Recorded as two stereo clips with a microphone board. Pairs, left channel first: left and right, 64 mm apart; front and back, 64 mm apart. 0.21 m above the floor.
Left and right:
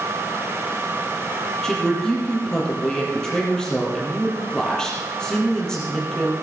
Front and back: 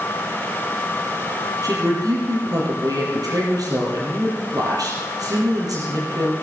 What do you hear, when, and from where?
1.6 s a woman speaking: 170° left, 6.5 m